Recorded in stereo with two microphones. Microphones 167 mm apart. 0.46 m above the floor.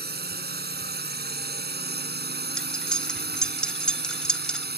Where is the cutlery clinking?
5° left (ahead or behind).